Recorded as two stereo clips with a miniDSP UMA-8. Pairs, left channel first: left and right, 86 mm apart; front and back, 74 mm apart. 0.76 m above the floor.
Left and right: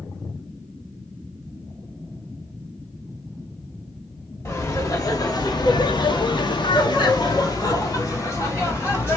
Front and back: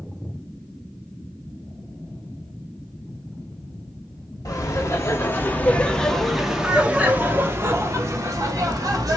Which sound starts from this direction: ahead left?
Laughter, at 4.5 s.